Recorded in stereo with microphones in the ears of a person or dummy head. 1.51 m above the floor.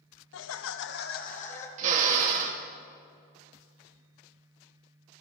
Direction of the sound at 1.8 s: 45° right (ahead or behind).